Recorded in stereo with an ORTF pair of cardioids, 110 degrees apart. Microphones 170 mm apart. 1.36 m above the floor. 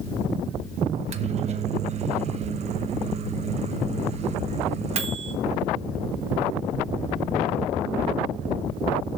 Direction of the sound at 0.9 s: 40° right.